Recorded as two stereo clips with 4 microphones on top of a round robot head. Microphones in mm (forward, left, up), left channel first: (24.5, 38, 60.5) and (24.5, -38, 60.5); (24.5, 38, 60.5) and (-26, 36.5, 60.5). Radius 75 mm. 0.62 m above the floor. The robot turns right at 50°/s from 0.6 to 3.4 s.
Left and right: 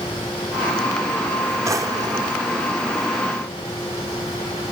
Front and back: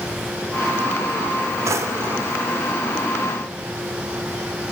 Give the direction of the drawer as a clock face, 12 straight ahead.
5 o'clock.